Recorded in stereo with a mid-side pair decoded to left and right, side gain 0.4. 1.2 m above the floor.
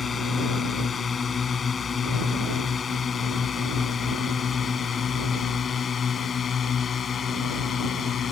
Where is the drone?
45° left; by 8.3 s 55° left.